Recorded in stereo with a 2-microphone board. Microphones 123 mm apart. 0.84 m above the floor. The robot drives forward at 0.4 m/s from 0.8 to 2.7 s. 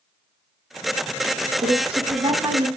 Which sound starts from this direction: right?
A woman speaking, at 1.6 s.